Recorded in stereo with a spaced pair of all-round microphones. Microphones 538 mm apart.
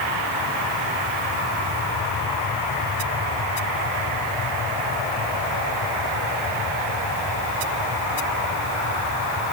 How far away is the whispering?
No whispering in this recording.